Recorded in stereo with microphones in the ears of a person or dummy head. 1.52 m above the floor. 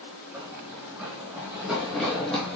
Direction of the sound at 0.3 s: 15° right (ahead or behind).